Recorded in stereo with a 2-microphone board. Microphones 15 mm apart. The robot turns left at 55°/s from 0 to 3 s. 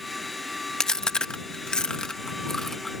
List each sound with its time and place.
0.8 s chewing: 50° left (ahead or behind); by 2.9 s 15° left (ahead or behind)